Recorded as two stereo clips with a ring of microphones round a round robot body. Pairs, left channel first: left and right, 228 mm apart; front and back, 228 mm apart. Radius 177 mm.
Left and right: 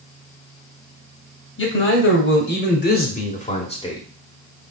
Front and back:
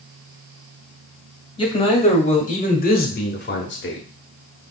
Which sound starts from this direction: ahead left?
A man speaking, at 1.6 s.